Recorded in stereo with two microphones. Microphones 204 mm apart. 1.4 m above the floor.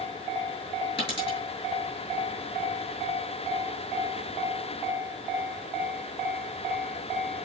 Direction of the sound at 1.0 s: 25° left (ahead or behind).